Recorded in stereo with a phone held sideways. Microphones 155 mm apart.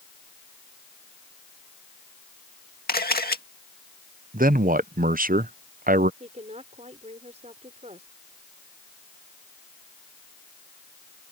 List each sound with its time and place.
2.9 s a camera shutter: 80° left
4.3 s a man speaking: 65° right (ahead or behind)
6.2 s a woman speaking: 45° right (ahead or behind)